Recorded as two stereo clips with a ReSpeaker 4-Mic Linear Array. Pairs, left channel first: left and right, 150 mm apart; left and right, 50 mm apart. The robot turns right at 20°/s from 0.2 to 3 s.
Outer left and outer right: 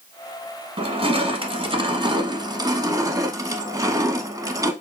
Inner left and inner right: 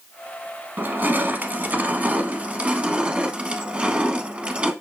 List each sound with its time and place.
0.8 s crushing: 85° right, 0.7 m; by 4.7 s 40° right, 0.7 m